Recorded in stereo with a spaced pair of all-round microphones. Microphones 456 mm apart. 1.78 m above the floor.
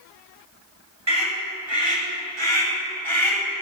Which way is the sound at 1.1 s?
65° right (ahead or behind).